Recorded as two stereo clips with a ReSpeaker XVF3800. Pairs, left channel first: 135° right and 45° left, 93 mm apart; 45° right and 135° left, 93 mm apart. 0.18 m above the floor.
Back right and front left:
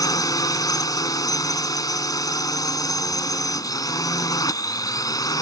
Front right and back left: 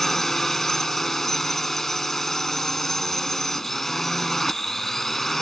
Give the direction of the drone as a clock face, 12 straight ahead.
4 o'clock.